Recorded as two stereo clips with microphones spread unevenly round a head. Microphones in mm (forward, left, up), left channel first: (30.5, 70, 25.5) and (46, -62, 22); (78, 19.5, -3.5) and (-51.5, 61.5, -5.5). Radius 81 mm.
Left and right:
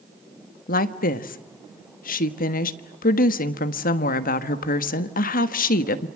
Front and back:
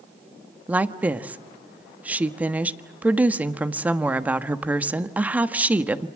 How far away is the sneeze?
No sneeze in this recording.